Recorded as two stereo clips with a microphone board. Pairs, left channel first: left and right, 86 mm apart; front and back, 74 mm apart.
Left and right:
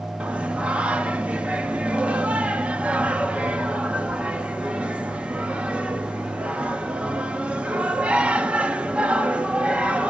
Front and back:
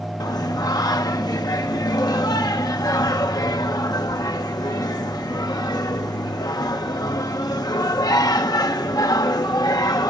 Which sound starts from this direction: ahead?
Singing, at 0.2 s.